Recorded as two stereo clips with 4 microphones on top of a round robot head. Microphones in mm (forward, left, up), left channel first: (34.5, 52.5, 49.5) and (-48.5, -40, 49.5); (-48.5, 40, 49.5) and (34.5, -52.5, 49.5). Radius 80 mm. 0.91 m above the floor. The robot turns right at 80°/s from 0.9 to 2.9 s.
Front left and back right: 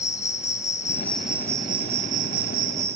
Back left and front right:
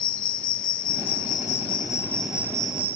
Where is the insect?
110° left, 0.8 m; by 3.0 s 90° right, 0.8 m.